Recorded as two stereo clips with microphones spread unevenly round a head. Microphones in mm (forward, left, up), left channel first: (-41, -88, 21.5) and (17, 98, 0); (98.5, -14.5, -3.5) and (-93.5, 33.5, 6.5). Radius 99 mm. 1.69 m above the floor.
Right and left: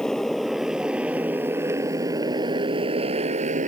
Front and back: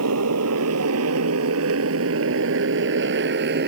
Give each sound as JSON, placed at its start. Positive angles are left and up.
{"t": 0.0, "sound": "a motorcycle", "azimuth_deg": 165}